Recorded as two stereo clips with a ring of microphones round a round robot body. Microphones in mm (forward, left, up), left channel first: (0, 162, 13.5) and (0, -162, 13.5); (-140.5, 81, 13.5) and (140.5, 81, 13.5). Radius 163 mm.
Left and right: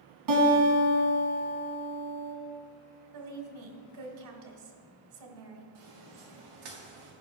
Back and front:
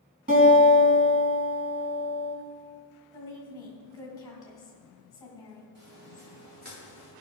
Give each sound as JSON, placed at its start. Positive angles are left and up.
{"t": 0.3, "sound": "a guitar", "azimuth_deg": -60, "distance_m": 2.5}
{"t": 3.1, "sound": "a woman speaking", "azimuth_deg": -100, "distance_m": 2.0}
{"t": 5.8, "sound": "footsteps", "azimuth_deg": -60, "distance_m": 4.0}